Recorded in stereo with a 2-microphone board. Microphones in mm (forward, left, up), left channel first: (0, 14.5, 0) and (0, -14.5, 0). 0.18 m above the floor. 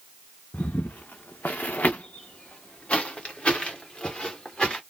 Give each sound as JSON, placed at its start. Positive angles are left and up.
{"t": 0.5, "sound": "footsteps", "side_deg": 70, "distance_m": 0.7}